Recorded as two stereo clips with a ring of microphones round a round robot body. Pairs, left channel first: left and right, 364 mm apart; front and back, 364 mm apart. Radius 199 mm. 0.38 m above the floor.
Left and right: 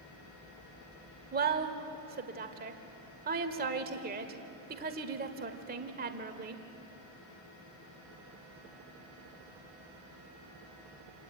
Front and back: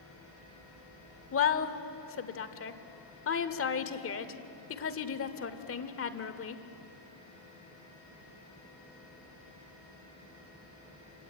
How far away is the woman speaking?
About 1.4 m.